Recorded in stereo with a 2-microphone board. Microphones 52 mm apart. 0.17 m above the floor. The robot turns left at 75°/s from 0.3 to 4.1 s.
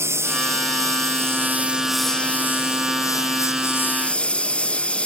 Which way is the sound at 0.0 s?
55° right.